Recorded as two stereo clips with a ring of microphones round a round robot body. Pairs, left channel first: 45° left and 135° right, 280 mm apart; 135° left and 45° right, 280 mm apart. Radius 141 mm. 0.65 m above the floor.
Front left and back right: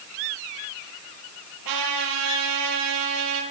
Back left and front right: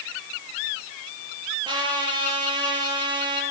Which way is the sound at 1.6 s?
120° right.